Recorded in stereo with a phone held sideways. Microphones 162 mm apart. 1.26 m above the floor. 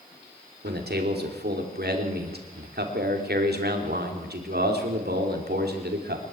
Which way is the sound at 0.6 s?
85° right.